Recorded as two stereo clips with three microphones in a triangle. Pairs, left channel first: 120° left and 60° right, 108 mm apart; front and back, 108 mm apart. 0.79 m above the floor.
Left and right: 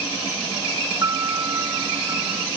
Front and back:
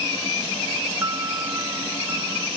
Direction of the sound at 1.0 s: 120° right.